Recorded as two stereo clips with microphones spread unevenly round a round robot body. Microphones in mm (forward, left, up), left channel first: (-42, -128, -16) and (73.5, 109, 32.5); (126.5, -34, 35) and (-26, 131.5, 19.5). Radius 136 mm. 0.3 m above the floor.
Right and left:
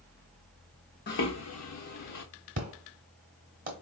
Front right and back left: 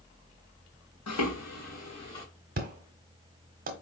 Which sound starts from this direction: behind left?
An explosion, at 2.6 s.